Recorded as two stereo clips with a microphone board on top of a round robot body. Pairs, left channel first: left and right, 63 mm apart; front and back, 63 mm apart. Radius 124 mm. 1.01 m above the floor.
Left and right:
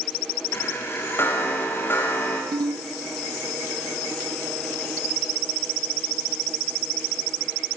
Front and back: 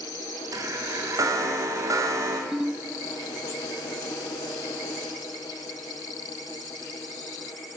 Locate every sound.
0.5 s a chime: 145° left, 3.5 m
2.5 s a ringtone: 95° right, 0.8 m